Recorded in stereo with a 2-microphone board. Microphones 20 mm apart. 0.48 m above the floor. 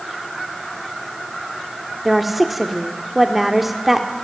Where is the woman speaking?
10° right (ahead or behind), 1.4 m.